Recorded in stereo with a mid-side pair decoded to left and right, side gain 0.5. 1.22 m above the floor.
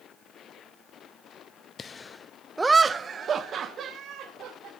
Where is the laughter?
40° left, 0.7 m; by 4.7 s 65° right, 2 m.